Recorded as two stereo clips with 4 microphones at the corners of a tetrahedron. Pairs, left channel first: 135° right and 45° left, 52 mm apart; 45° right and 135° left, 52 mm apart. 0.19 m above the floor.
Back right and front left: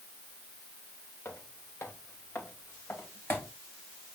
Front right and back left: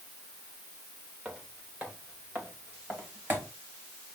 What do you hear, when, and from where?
1.2 s footsteps: 160° right, 2.5 m; by 3.5 s straight behind, 4 m